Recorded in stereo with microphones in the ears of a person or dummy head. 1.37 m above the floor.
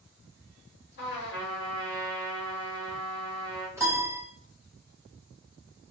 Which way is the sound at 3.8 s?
10° right (ahead or behind).